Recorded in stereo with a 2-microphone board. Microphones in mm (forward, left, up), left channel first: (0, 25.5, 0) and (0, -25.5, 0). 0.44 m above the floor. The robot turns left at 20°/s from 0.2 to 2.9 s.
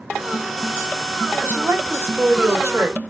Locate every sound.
1.4 s a woman speaking: 40° right (ahead or behind), 1.4 m; by 3.0 s 50° right (ahead or behind), 1.4 m